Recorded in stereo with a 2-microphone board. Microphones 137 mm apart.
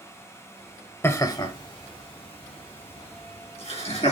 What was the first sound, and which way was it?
Laughter, 20° left (ahead or behind).